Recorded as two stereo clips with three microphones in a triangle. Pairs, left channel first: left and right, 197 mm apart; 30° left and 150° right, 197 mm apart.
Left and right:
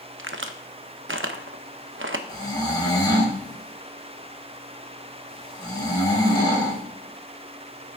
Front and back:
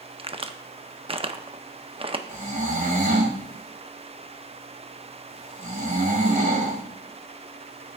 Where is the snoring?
160° left, 2 m.